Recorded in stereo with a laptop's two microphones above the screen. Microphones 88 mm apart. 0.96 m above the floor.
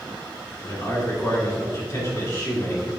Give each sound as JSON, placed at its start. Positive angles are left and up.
{"t": 0.6, "sound": "a man speaking", "side_deg": 40, "distance_m": 2.5}